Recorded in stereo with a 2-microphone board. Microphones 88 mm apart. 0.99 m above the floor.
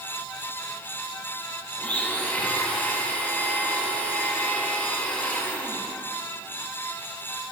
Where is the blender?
15° left (ahead or behind), 1.5 m.